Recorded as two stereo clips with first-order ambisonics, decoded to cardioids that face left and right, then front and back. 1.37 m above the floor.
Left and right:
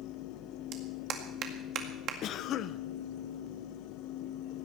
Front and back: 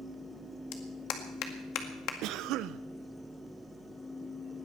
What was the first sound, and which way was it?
A clap, 40° right.